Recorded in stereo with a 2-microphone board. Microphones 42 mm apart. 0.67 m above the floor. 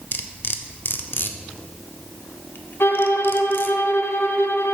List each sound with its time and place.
0.1 s cutlery clinking: 60° left (ahead or behind), 0.6 m
2.8 s a violin: 75° left (ahead or behind), 0.6 m